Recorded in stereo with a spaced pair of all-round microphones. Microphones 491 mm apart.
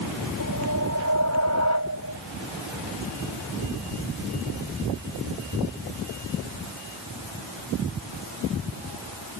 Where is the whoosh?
30° right (ahead or behind).